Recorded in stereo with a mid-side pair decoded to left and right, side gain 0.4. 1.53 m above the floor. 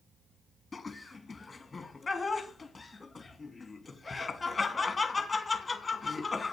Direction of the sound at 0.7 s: 25° left.